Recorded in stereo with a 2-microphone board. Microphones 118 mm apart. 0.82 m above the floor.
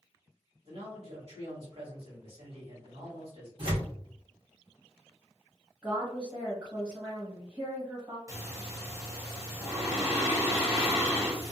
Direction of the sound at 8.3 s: 25° right (ahead or behind).